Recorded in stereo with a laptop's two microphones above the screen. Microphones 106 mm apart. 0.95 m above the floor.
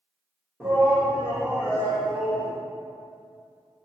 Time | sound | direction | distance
0.6 | a shout | 15° right (ahead or behind) | 0.8 m